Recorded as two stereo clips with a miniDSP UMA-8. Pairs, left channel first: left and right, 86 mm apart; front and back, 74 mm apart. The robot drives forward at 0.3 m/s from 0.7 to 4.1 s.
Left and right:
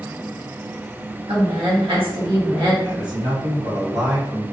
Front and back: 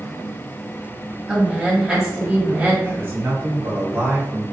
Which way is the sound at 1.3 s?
95° right.